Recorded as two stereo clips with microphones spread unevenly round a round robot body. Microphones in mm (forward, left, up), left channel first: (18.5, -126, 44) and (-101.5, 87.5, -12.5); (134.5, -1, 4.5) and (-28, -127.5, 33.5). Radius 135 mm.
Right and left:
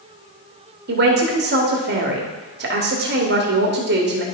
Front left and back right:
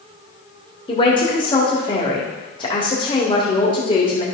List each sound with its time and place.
0.9 s a man speaking: 100° left, 1.4 m